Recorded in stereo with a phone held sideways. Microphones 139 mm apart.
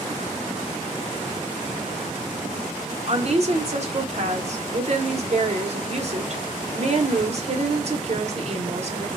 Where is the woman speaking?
50° right (ahead or behind), 0.6 m.